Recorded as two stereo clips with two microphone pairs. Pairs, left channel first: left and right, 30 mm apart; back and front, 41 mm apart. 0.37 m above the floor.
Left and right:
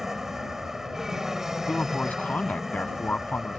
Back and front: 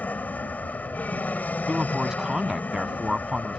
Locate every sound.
0.0 s an aircraft: 160° right
1.7 s a man speaking: 75° left